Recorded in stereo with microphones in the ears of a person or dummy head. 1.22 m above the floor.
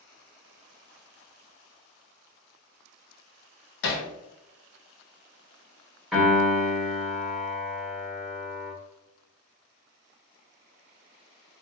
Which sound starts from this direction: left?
Hammering, at 3.8 s.